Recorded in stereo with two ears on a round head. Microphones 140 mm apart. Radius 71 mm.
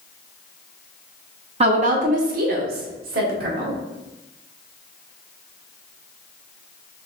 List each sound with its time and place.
1.6 s a woman speaking: 40° right (ahead or behind), 0.6 m; by 3.8 s 70° right (ahead or behind), 1.6 m